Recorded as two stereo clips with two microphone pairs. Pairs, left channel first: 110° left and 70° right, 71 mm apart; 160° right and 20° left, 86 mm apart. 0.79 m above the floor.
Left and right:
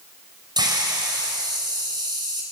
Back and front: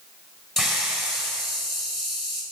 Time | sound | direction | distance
0.6 | a hiss | 70° right | 4 m